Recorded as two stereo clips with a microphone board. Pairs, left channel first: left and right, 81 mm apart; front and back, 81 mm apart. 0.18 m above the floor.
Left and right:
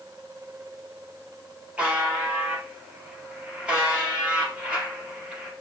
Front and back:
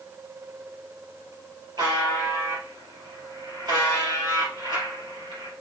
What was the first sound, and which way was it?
A buzzer, 165° right.